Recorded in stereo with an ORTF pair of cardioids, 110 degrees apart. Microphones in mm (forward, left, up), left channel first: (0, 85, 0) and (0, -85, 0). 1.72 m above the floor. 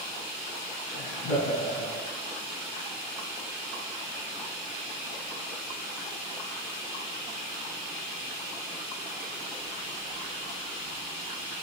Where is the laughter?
70° left, 1.4 m.